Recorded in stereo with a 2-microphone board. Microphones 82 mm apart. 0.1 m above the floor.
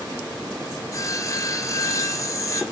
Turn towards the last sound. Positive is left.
turn(degrees=40)  # may be behind; listen again after turning